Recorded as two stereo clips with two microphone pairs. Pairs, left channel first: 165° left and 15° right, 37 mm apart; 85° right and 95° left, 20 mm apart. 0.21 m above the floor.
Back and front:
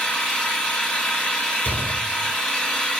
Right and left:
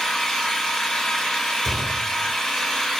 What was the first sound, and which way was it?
An engine running, 130° right.